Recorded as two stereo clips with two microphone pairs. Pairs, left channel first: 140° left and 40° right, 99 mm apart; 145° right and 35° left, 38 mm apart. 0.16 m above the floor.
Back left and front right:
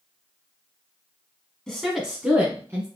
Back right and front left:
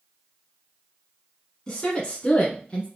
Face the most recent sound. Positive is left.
turn(degrees=-90)